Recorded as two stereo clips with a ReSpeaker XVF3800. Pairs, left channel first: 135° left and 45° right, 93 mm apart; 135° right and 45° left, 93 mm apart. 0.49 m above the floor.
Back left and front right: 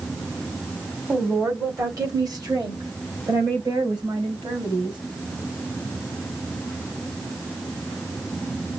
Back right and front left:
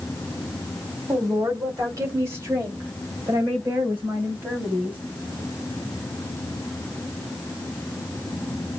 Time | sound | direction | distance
1.1 | a woman speaking | 10° left | 1.7 m